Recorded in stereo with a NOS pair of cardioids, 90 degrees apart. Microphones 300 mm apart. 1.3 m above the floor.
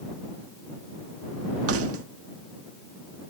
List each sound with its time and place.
1.7 s keys jangling: 50° right